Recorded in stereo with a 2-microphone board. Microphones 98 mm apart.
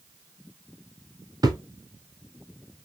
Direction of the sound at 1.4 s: 40° right (ahead or behind).